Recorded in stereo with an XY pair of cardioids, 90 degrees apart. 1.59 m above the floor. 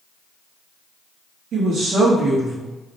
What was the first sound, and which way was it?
A woman speaking, 70° right.